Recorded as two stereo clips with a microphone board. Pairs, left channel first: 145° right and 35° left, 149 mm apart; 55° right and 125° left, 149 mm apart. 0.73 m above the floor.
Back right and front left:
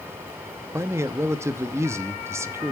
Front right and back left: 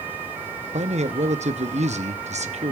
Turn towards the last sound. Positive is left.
turn(degrees=100)